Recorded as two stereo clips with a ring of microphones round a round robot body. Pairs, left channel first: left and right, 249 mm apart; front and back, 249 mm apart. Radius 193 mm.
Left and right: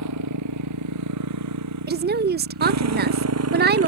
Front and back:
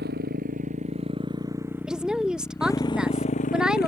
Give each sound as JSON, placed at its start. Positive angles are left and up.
{"t": 0.0, "sound": "a motorcycle", "azimuth_deg": -115}
{"t": 1.9, "sound": "a woman speaking", "azimuth_deg": -95}